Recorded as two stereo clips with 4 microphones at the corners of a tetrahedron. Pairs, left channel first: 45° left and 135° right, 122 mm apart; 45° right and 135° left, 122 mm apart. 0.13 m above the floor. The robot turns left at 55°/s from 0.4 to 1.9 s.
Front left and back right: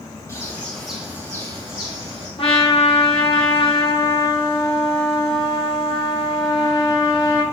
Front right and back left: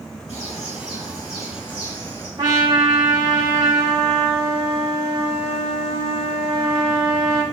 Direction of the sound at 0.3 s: 20° right.